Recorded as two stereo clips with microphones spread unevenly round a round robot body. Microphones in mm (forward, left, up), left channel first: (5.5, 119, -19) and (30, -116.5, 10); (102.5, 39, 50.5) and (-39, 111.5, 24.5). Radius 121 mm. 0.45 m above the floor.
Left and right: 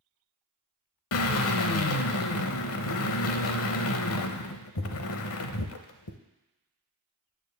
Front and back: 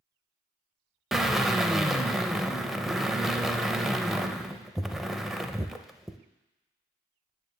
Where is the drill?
65° left, 0.7 m.